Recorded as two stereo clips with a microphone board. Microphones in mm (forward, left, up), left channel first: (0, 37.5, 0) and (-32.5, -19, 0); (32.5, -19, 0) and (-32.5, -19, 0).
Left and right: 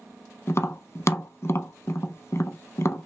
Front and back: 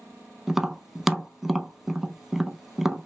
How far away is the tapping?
About 0.5 m.